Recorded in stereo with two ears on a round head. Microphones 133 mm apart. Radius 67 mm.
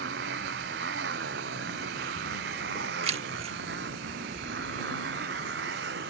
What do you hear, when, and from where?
0.0 s a motorcycle: 90° right
3.0 s keys jangling: 45° right (ahead or behind)